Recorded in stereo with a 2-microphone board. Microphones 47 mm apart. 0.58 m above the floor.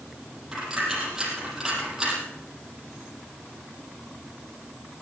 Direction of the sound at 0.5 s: 10° right (ahead or behind).